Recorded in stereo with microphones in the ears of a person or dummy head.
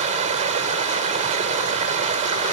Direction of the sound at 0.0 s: 40° right (ahead or behind).